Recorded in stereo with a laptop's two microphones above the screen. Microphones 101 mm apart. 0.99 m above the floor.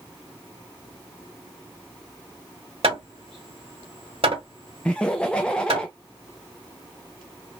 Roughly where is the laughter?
Centre.